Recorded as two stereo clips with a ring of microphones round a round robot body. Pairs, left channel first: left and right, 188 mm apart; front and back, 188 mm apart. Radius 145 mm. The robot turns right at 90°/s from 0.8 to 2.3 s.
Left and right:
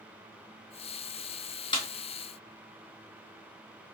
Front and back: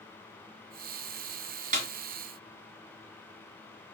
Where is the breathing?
I don't hear breathing.